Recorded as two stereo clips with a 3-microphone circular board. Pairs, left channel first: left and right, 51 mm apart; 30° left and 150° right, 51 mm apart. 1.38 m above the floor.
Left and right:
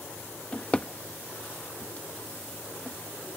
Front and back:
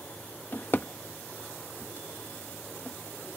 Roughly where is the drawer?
Ahead left.